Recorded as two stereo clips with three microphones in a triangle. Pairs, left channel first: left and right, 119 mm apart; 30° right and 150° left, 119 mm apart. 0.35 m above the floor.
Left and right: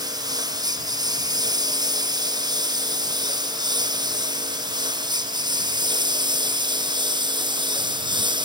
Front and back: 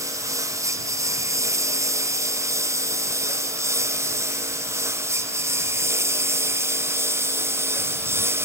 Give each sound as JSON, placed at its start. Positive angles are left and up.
{"t": 0.0, "sound": "a lawn mower", "azimuth_deg": -145}